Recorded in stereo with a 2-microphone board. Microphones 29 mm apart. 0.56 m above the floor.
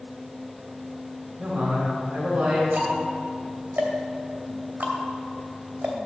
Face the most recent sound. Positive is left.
turn(degrees=-65)  # may be behind; listen again after turning